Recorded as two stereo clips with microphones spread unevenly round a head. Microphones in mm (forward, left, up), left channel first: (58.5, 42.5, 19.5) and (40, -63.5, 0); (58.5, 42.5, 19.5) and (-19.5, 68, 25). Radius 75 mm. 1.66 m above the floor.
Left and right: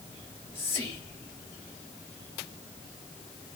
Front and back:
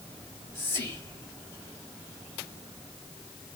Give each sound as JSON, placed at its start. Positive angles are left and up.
{"t": 0.2, "sound": "whispering", "azimuth_deg": 15, "distance_m": 1.5}